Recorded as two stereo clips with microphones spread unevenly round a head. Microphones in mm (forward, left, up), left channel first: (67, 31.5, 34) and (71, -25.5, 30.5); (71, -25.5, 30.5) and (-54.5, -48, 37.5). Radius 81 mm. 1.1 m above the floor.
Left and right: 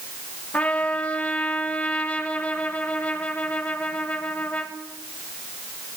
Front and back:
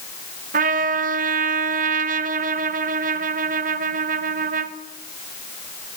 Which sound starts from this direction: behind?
A trumpet, at 0.5 s.